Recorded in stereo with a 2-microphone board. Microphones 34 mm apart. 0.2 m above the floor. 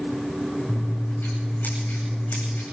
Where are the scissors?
70° left (ahead or behind), 9.5 m.